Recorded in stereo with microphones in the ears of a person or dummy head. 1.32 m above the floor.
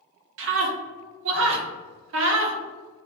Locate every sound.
0.4 s a scream: 65° right (ahead or behind), 0.6 m